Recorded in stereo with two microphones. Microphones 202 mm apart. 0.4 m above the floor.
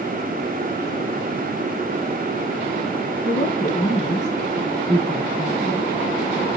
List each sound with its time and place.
3.2 s a woman speaking: 40° left (ahead or behind), 5 m; by 5.8 s 10° left (ahead or behind), 2 m